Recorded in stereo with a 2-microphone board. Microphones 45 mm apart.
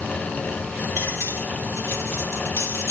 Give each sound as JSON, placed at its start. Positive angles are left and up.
{"t": 1.0, "sound": "cutlery clinking", "side_deg": 70, "distance_m": 3.5}